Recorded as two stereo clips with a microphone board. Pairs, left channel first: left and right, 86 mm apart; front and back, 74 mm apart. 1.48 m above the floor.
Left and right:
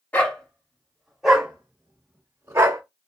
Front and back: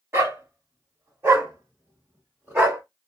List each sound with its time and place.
0.1 s a dog barking: 150° left, 1.5 m; by 2.8 s 125° right, 1.7 m